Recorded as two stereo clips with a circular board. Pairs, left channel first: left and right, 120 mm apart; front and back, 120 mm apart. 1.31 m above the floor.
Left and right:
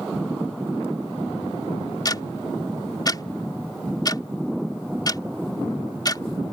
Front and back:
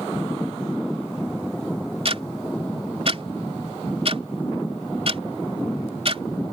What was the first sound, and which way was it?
Ticking, 145° left.